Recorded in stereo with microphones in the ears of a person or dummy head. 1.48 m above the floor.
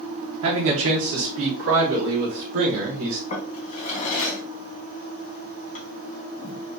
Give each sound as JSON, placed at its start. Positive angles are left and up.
{"t": 0.4, "sound": "a man speaking", "side_deg": -70, "distance_m": 1.0}
{"t": 3.3, "sound": "a drawer", "side_deg": 35, "distance_m": 1.2}